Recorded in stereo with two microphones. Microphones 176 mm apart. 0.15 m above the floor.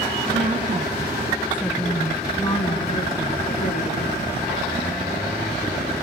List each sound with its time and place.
0.3 s a woman speaking: 45° right (ahead or behind), 1.8 m; by 4.3 s 50° left (ahead or behind), 3 m